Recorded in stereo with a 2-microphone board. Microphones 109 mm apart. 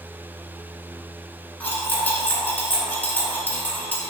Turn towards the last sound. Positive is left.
turn(degrees=15)  # may be behind; listen again after turning